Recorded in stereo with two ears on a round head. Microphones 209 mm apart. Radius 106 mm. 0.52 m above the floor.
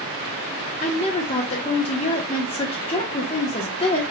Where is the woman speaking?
25° left (ahead or behind), 0.9 m.